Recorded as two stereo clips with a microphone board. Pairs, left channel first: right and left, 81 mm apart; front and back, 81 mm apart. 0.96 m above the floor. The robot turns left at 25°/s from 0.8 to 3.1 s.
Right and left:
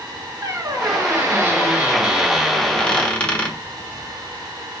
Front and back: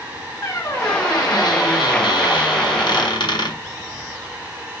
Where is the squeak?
40° left, 1.3 m; by 3.6 s 15° right, 1.3 m.